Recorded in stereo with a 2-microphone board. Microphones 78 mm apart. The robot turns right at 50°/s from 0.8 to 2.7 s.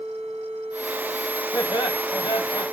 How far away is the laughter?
About 1.3 m.